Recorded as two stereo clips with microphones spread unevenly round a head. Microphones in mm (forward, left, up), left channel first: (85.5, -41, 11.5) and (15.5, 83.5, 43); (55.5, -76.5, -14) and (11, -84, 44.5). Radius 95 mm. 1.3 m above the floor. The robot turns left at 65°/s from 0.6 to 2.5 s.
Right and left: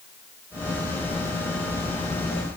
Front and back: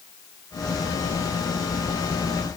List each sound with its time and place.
Only background noise.